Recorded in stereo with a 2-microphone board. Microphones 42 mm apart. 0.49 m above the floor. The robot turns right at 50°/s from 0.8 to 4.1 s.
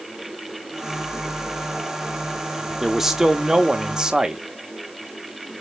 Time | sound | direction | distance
2.8 | a man speaking | 5° right (ahead or behind) | 0.7 m